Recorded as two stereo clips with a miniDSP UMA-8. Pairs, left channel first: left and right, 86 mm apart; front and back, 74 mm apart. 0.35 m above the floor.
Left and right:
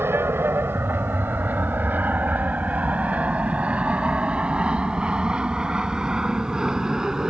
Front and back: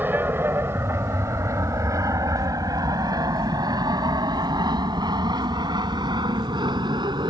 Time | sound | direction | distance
0.0 | an aircraft | 135° right | ?